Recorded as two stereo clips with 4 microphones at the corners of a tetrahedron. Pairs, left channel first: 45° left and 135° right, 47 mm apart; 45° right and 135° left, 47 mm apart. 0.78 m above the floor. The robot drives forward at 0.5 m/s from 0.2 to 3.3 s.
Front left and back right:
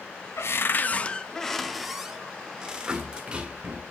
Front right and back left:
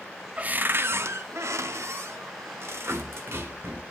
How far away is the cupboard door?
About 0.5 m.